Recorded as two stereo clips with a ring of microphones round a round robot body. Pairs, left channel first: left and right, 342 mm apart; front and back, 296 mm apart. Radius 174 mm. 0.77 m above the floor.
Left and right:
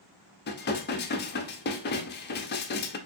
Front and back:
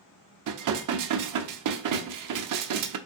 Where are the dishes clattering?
155° left, 0.6 m.